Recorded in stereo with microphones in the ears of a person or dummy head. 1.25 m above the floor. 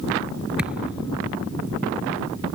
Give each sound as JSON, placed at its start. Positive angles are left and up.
{"t": 0.6, "sound": "a thud", "side_deg": -5}